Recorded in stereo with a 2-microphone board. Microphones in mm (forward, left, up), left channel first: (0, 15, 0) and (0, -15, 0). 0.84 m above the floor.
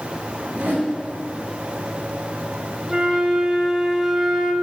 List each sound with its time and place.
0.5 s a whoosh: 75° right (ahead or behind), 3.5 m
2.9 s a flute: 20° right (ahead or behind), 1.6 m